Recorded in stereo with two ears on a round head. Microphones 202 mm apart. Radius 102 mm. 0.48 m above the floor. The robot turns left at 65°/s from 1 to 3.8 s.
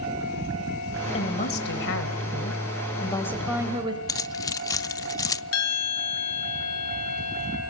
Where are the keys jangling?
15° left (ahead or behind), 0.5 m.